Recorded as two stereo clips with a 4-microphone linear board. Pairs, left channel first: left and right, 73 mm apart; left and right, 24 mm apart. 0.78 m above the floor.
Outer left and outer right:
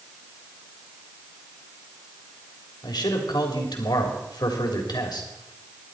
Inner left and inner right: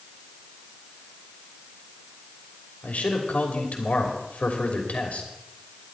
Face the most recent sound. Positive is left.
turn(degrees=70)  # may be behind; listen again after turning